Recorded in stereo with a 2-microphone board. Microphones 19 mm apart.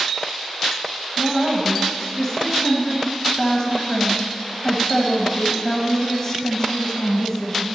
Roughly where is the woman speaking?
Centre.